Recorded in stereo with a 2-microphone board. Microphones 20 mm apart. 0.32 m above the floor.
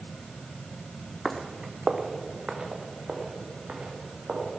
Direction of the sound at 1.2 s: 5° left (ahead or behind).